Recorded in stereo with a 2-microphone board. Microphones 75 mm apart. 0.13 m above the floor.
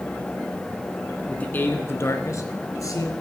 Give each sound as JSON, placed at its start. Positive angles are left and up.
{"t": 1.3, "sound": "a man speaking", "side_deg": 15, "distance_m": 1.1}